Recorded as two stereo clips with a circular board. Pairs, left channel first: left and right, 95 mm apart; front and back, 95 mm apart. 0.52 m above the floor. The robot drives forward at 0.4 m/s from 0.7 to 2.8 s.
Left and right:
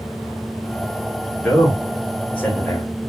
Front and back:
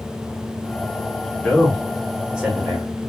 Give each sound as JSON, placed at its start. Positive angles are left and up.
{"t": 1.4, "sound": "a man speaking", "azimuth_deg": 50, "distance_m": 1.0}